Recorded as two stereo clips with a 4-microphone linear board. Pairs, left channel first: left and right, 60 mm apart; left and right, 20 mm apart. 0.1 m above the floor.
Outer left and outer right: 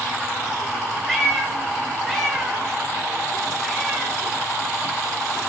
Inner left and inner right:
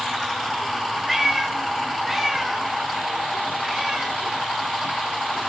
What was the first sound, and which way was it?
A cat meowing, 5° left (ahead or behind).